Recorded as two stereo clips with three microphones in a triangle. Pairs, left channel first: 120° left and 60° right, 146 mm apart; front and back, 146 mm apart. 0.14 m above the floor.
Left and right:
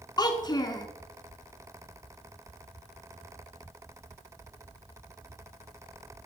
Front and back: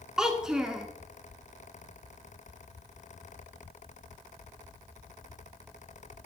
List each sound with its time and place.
0.2 s a child speaking: 100° left, 0.7 m